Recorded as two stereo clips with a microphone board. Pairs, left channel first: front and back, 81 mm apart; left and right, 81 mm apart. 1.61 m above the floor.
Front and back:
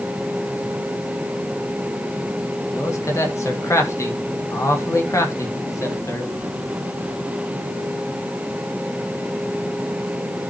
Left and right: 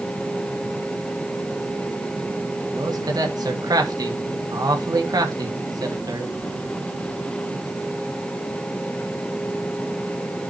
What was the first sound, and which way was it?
A man speaking, 55° right.